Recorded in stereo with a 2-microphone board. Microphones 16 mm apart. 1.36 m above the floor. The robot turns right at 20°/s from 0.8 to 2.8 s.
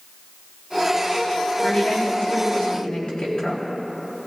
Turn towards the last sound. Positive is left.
turn(degrees=70)  # may be behind; listen again after turning